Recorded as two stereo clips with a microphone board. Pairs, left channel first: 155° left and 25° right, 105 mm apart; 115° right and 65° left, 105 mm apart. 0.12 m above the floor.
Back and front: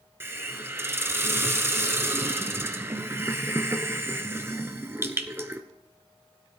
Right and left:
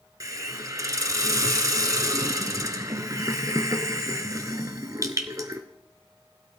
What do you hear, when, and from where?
0.2 s a hiss: 30° left, 0.9 m